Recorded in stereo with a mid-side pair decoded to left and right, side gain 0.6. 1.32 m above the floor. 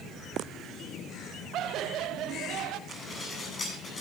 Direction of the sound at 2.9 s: 30° left.